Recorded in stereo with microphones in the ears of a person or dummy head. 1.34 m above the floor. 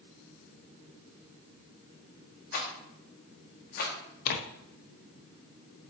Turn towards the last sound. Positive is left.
turn(degrees=55)  # may be behind; listen again after turning